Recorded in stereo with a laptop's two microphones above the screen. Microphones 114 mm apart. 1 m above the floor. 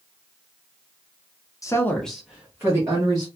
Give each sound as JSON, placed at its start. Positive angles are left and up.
{"t": 1.6, "sound": "a woman speaking", "side_deg": 30, "distance_m": 0.6}